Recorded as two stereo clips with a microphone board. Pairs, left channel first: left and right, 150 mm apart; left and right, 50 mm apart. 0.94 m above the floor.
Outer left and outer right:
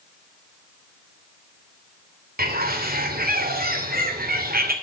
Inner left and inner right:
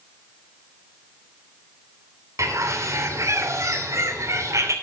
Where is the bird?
75° right (ahead or behind), 2.5 m.